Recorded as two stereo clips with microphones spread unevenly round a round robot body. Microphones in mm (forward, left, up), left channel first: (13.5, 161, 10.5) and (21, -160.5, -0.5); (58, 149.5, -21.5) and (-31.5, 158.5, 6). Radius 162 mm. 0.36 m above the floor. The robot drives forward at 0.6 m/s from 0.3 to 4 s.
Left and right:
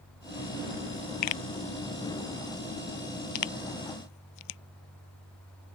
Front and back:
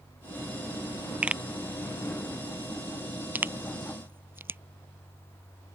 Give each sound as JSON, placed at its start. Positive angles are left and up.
{"t": 1.2, "sound": "a pop", "azimuth_deg": 95}